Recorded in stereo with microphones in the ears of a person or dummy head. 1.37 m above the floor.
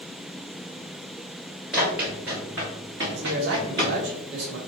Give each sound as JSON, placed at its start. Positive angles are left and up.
{"t": 1.7, "sound": "running footsteps", "side_deg": -5, "distance_m": 1.8}
{"t": 3.1, "sound": "a man speaking", "side_deg": -60, "distance_m": 1.3}